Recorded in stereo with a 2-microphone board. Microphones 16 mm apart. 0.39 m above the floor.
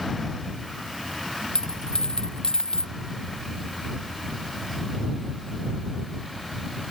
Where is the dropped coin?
75° left (ahead or behind).